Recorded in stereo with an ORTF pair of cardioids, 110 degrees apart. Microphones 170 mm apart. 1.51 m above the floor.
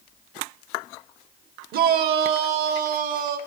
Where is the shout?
65° right, 1.0 m; by 3.4 s 70° right, 2 m.